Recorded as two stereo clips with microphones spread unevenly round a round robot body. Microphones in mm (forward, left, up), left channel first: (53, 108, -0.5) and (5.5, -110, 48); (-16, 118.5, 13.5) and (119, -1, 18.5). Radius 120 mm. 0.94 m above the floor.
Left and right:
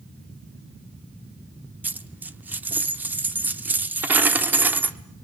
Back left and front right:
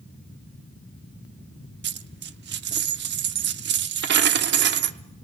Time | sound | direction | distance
1.8 | a dropped coin | 25° right | 0.9 m